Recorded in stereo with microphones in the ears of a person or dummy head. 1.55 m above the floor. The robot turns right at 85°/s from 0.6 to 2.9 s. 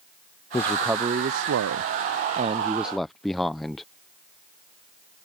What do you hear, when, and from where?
0.5 s a man speaking: 170° left; by 3.9 s 5° left